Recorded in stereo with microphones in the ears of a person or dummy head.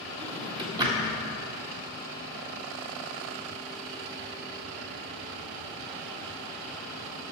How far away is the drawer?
About 1.6 m.